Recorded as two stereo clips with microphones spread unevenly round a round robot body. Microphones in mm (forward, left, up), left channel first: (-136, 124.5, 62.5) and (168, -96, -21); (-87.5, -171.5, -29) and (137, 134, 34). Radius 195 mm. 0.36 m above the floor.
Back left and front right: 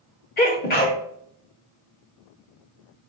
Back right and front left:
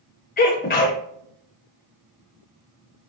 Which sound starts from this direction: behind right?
A sneeze, at 0.4 s.